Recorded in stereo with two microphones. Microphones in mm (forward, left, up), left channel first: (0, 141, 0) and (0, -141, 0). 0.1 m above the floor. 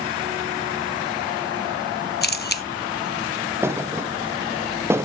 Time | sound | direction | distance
2.2 | a camera shutter | 40° left (ahead or behind) | 1.2 m
3.6 | a thud | 10° right (ahead or behind) | 1.1 m